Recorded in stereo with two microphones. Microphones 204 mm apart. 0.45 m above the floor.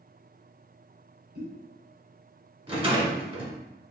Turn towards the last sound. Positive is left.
turn(degrees=-30)  # may be behind; listen again after turning